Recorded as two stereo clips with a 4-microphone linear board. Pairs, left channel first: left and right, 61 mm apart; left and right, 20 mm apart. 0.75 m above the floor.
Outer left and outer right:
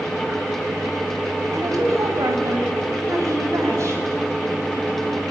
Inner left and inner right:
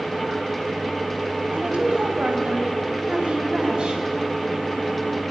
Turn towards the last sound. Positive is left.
turn(degrees=-50)  # may be behind; listen again after turning